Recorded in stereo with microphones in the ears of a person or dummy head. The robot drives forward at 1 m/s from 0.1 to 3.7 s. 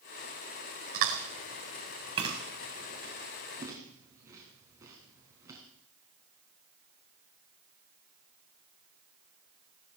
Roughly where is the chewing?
Right.